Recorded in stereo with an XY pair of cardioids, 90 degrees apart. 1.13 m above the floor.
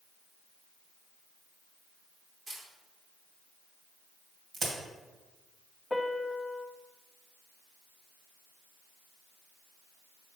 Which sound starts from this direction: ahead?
A piano, at 5.9 s.